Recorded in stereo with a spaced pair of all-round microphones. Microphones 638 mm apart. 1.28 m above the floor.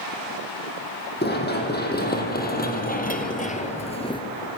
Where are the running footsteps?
15° left (ahead or behind), 3.5 m; by 4.2 s 5° left (ahead or behind), 1.4 m.